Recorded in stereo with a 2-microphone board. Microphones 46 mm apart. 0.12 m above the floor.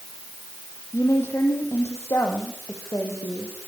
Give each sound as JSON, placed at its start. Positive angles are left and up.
{"t": 0.9, "sound": "a woman speaking", "side_deg": 70, "distance_m": 5.0}